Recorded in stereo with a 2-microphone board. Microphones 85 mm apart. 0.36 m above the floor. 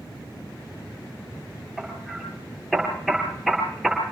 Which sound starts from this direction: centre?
Hammering, at 1.8 s.